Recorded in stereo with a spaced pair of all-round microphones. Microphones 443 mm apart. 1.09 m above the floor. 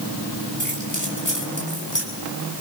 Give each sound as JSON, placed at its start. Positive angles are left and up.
{"t": 0.6, "sound": "keys jangling", "side_deg": 45, "distance_m": 5.0}